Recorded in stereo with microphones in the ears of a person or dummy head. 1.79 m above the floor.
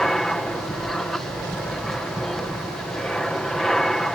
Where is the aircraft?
5° left (ahead or behind).